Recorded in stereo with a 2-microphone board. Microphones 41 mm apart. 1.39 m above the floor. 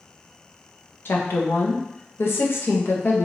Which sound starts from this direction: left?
A woman speaking, at 1.1 s.